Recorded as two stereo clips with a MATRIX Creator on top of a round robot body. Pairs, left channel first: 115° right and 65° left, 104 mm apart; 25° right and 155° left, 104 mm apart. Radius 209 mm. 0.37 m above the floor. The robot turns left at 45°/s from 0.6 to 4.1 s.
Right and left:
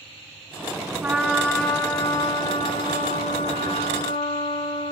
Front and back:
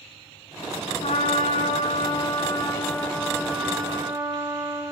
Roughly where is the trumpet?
Ahead.